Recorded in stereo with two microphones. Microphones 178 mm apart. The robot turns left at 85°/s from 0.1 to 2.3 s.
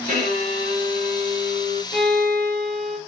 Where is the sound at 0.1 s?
55° right, 2.5 m; by 1.8 s 155° left, 2.5 m.